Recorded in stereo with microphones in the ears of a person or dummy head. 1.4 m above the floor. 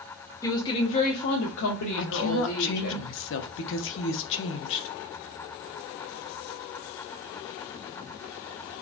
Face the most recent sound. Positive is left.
turn(degrees=50)  # may be behind; listen again after turning